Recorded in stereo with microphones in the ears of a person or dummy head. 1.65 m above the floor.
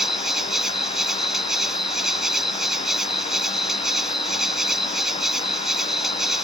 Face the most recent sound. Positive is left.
turn(degrees=0)  # may be behind; listen again after turning